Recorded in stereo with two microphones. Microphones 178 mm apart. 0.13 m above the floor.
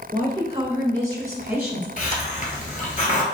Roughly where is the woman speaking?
Right.